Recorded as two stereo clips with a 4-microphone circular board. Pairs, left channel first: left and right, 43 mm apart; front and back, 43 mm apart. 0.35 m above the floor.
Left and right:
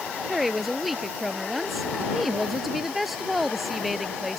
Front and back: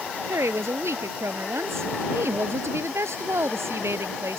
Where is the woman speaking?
Straight behind.